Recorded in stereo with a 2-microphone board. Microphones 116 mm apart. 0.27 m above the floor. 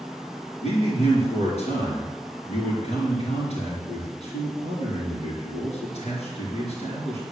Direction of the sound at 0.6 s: 65° left (ahead or behind).